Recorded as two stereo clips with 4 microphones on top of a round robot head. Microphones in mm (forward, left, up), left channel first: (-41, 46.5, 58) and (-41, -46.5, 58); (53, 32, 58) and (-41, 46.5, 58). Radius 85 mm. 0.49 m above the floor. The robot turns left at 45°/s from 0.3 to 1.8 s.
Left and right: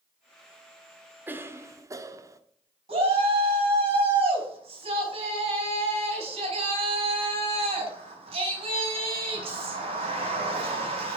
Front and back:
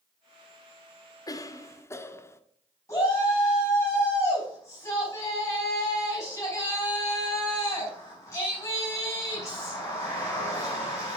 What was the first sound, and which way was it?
A cough, 30° right.